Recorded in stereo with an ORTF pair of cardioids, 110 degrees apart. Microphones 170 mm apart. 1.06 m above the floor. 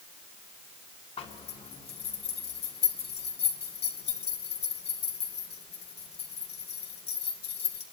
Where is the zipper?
35° left, 2.5 m.